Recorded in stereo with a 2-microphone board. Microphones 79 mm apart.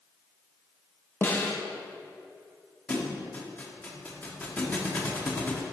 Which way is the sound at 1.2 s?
25° left (ahead or behind).